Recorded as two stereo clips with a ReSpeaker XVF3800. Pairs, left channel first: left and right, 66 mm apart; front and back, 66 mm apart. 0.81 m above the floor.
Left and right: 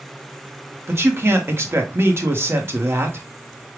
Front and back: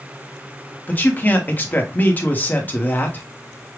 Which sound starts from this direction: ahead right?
A man speaking, at 0.9 s.